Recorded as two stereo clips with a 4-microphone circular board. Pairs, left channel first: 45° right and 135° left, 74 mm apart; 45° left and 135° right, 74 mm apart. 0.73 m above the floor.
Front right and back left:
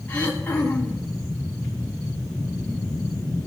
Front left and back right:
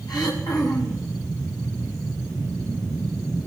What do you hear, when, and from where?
0.1 s throat clearing: 25° left, 3 m